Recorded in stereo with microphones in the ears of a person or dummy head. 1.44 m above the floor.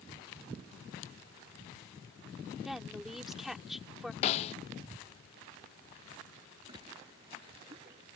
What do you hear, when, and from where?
2.6 s a woman speaking: 5° right (ahead or behind)
4.2 s a snare drum: 35° left (ahead or behind)
6.7 s a splash: 30° right (ahead or behind)